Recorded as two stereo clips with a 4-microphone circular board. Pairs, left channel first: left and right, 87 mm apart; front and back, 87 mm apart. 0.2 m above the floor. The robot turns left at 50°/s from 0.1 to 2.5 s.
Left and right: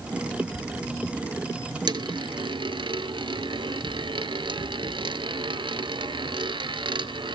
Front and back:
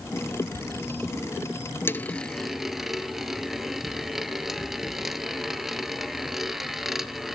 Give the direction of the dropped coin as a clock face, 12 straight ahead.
2 o'clock.